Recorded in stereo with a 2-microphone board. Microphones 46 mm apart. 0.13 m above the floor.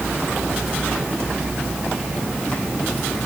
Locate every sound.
Only background noise.